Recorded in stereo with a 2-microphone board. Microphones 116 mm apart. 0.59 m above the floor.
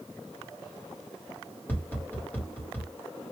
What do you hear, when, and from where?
1.7 s tapping: 15° left (ahead or behind), 1.2 m